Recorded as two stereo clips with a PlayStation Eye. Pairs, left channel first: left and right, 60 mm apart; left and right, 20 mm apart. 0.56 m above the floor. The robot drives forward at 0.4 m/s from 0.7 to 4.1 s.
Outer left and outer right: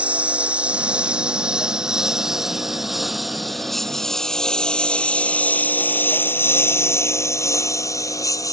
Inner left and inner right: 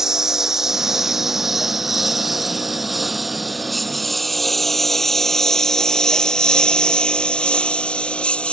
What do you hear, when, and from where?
0.0 s a lawn mower: 25° right (ahead or behind); by 8.5 s 75° left (ahead or behind)